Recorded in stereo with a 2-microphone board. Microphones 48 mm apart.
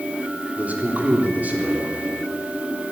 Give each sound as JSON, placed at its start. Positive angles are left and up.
{"t": 0.6, "sound": "a man speaking", "side_deg": -35, "distance_m": 3.5}